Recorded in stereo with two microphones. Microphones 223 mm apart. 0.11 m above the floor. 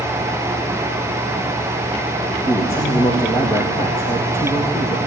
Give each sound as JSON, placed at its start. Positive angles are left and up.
{"t": 2.5, "sound": "a man speaking", "side_deg": 10, "distance_m": 3.0}